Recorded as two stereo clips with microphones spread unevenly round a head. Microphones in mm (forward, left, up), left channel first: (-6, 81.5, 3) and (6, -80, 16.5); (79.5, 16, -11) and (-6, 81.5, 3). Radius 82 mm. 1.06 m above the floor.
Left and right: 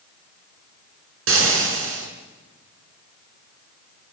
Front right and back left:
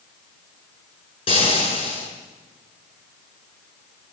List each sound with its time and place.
1.3 s frying: 100° right, 6 m